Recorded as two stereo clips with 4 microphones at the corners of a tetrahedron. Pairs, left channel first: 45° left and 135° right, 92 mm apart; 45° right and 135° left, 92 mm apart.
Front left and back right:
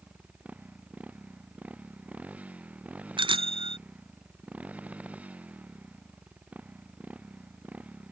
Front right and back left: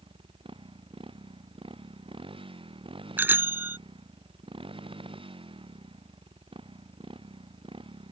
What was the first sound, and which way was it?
A motorcycle, 150° left.